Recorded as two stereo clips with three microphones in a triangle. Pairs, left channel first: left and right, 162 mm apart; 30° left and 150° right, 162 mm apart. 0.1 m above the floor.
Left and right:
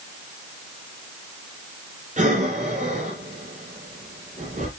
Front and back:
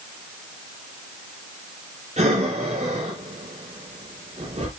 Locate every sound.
2.2 s breathing: 115° right, 3 m